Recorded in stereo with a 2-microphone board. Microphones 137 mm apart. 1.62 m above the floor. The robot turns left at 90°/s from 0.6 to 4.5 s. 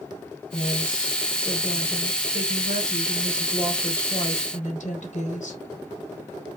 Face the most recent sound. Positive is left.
turn(degrees=115)